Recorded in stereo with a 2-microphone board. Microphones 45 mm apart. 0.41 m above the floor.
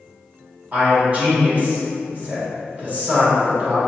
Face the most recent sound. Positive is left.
turn(degrees=-35)  # may be behind; listen again after turning